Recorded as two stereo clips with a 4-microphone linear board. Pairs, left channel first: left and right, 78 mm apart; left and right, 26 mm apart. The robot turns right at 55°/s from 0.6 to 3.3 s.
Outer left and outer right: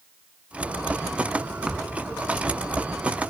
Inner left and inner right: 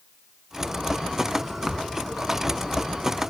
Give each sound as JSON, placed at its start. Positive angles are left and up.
{"t": 1.7, "sound": "a thud", "side_deg": -10}